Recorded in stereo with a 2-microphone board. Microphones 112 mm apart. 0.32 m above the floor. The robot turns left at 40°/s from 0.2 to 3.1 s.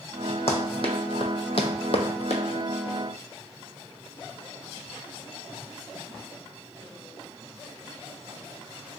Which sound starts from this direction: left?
Running footsteps, at 0.5 s.